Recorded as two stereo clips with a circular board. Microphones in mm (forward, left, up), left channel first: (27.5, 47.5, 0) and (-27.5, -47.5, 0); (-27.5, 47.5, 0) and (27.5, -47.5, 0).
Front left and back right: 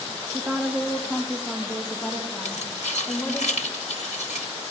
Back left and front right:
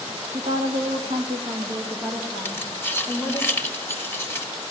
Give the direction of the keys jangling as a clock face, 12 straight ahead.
10 o'clock.